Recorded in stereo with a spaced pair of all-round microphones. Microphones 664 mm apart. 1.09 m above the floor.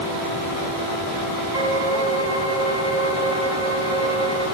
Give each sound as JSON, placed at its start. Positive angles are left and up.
{"t": 1.5, "sound": "a violin", "side_deg": 25, "distance_m": 8.0}